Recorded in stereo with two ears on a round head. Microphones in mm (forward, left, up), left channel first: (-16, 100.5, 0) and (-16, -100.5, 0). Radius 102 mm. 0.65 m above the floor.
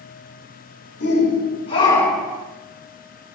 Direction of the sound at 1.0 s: 50° left (ahead or behind).